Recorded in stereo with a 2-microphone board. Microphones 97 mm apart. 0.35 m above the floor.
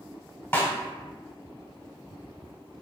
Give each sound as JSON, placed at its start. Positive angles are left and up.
{"t": 0.5, "sound": "a snare drum", "side_deg": 25, "distance_m": 0.9}